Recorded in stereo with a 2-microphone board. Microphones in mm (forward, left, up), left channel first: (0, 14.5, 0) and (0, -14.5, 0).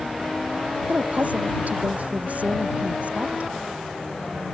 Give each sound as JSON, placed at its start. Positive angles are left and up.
{"t": 0.9, "sound": "a woman speaking", "side_deg": -60}